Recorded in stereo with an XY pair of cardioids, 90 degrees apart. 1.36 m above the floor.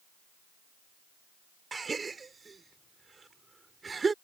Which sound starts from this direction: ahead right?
A gasp, at 1.7 s.